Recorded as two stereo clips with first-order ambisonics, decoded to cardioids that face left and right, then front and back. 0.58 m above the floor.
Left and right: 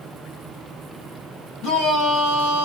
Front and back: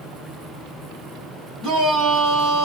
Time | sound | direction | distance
1.6 | a shout | 110° left | 3.5 m